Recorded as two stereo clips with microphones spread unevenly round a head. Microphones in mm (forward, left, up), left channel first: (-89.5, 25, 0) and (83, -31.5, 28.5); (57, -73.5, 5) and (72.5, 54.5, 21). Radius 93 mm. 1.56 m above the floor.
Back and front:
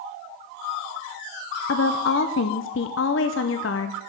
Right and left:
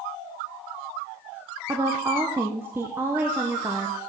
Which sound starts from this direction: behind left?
A woman speaking, at 1.7 s.